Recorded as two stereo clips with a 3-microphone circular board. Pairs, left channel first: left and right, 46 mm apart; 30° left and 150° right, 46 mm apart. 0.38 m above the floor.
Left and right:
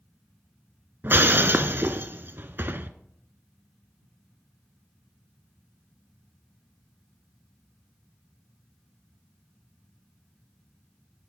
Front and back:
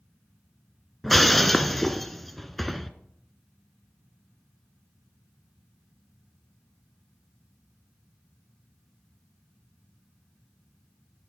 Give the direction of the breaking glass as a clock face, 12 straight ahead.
2 o'clock.